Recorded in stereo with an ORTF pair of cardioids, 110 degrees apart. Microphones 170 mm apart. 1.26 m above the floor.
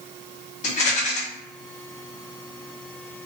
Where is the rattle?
45° left, 0.9 m.